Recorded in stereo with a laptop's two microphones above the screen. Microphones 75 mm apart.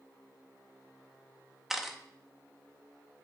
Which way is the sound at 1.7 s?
5° right (ahead or behind).